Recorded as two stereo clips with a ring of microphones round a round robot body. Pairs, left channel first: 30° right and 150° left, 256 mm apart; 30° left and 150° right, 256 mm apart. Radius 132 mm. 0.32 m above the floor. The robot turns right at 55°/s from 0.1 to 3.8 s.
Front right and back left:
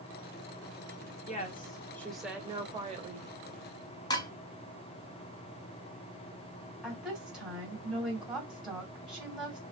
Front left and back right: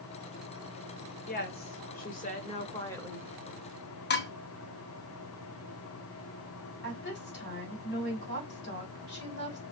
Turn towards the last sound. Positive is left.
turn(degrees=65)